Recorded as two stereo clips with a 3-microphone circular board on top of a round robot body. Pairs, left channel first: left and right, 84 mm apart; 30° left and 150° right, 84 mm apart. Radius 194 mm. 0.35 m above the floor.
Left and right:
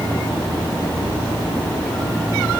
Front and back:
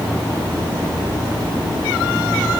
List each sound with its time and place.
Only background noise.